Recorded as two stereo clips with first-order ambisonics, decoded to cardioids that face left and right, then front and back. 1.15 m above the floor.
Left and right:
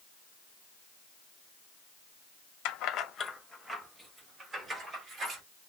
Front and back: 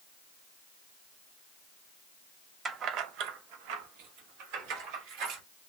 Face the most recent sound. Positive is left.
turn(degrees=-155)